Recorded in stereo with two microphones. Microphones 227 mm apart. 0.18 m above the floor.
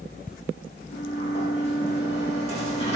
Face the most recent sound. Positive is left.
turn(degrees=30)  # may be behind; listen again after turning